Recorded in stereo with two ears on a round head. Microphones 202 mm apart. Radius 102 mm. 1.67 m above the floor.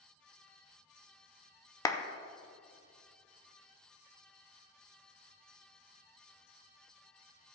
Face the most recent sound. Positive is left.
turn(degrees=15)  # may be behind; listen again after turning